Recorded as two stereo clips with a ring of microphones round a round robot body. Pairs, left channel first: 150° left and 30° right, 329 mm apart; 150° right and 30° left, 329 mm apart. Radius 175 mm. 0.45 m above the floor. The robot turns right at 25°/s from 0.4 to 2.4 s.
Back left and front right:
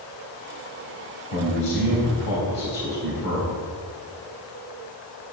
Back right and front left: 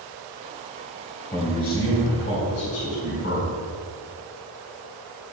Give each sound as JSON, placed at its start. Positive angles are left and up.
{"t": 1.3, "sound": "a man speaking", "azimuth_deg": 140, "distance_m": 3.5}